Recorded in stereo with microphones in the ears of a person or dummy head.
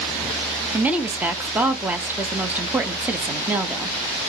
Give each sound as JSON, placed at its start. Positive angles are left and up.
{"t": 0.7, "sound": "a woman speaking", "side_deg": -5, "distance_m": 0.6}